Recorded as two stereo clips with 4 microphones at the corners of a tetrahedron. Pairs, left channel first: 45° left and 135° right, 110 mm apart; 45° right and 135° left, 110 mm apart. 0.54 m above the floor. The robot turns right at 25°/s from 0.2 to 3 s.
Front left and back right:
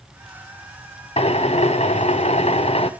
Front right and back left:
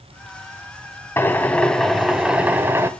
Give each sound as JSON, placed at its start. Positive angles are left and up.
{"t": 1.2, "sound": "a drill", "azimuth_deg": 25, "distance_m": 0.9}